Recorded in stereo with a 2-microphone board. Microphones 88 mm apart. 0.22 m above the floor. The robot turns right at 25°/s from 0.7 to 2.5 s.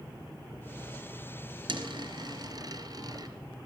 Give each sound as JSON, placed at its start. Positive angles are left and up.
{"t": 1.7, "sound": "a dropped coin", "side_deg": -65, "distance_m": 1.7}